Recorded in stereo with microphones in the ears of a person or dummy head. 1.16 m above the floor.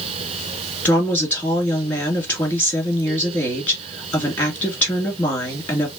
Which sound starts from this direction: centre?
A woman speaking, at 0.8 s.